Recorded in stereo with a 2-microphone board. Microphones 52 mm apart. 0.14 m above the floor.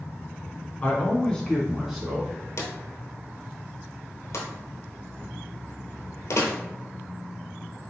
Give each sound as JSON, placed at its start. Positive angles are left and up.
{"t": 0.8, "sound": "a man speaking", "side_deg": 30, "distance_m": 1.6}
{"t": 2.6, "sound": "a drawer", "side_deg": 60, "distance_m": 1.1}